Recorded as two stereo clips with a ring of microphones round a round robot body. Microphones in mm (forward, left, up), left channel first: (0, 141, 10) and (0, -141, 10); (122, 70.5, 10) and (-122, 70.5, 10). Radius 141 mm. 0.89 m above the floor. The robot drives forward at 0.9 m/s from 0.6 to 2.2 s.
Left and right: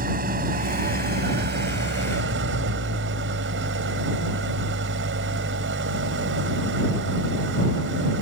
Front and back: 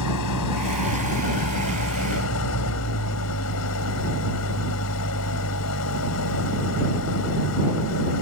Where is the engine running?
30° right; by 8.2 s 40° right.